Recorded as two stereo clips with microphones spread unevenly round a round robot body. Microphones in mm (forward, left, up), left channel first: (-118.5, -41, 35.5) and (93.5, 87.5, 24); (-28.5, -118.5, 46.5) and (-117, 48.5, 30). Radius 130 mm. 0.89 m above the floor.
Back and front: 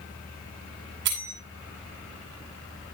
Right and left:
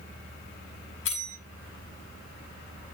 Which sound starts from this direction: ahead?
A bell, at 1.1 s.